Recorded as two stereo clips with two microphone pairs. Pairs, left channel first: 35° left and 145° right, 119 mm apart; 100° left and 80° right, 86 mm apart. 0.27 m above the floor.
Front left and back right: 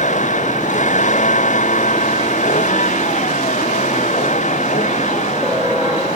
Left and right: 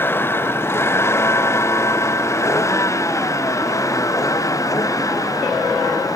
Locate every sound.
0.0 s a vehicle: 35° left; by 6.2 s 50° left